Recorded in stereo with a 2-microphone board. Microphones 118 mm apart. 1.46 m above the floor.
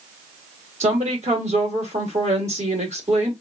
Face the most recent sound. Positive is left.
turn(degrees=-70)  # may be behind; listen again after turning